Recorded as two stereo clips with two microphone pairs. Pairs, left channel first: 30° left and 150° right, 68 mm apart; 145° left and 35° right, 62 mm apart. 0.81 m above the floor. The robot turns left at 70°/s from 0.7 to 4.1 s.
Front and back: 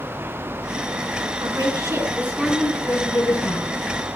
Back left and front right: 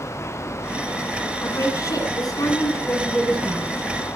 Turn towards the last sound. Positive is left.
turn(degrees=0)